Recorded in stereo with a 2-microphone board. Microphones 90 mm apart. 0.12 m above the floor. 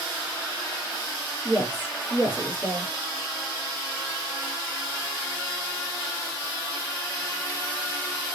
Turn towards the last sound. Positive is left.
turn(degrees=25)  # may be behind; listen again after turning